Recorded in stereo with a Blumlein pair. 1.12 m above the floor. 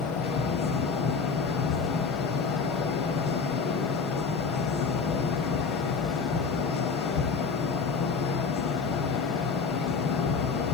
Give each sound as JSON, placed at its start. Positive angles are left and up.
{"t": 0.0, "sound": "a fan", "azimuth_deg": 35, "distance_m": 2.5}